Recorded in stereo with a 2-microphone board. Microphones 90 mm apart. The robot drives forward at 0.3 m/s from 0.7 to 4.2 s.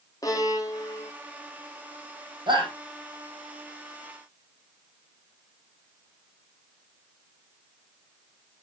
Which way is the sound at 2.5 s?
60° right (ahead or behind).